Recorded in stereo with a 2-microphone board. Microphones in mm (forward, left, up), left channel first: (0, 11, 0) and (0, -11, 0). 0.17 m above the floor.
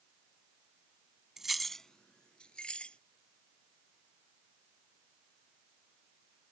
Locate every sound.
1.4 s keys jangling: 20° right (ahead or behind); by 3.0 s 45° left (ahead or behind)